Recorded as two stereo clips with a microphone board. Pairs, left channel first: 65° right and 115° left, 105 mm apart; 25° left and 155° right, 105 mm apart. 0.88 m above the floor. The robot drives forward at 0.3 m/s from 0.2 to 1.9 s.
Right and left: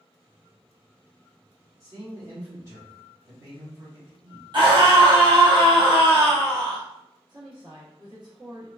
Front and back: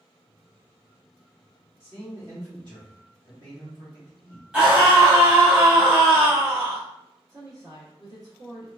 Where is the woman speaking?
150° left, 1.1 m.